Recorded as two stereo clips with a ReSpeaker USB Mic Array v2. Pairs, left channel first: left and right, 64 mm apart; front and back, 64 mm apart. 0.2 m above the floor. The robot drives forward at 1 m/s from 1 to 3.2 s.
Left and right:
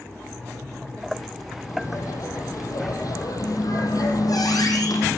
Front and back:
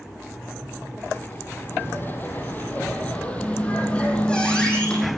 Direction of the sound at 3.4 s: 75° left.